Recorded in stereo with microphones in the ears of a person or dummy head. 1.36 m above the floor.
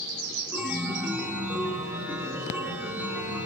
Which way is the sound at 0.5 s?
10° right (ahead or behind).